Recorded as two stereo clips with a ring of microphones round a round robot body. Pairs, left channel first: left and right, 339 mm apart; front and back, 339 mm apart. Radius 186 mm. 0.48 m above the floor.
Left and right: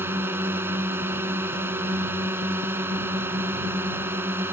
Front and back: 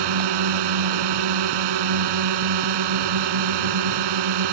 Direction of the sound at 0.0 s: 175° right.